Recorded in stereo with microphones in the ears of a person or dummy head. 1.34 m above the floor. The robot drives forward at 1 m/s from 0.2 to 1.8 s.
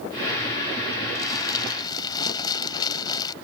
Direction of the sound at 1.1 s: 20° left (ahead or behind).